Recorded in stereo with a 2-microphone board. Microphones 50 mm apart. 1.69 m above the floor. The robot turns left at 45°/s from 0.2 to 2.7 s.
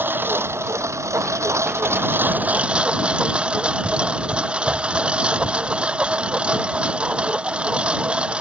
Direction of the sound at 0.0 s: 45° right.